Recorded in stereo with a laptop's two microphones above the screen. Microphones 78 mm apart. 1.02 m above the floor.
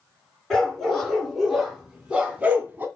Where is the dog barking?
5° left (ahead or behind), 3 m; by 2.9 s 25° right (ahead or behind), 2 m.